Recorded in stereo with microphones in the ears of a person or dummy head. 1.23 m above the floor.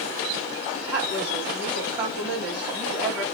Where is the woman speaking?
Centre (ahead or behind), 2.5 m.